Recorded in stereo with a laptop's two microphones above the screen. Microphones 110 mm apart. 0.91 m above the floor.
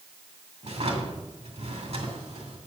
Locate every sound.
0.6 s a drawer: 80° right, 2.5 m